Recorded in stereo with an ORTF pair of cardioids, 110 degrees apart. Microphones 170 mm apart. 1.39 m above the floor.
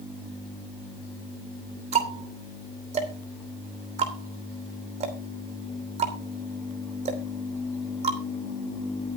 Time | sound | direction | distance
1.9 | ticking | 40° right | 3 m